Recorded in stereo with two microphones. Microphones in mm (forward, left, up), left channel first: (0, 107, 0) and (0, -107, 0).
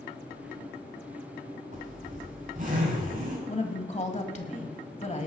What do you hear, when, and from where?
1.7 s a zipper: 45° right (ahead or behind), 6 m
3.5 s a woman speaking: 35° left (ahead or behind), 1.5 m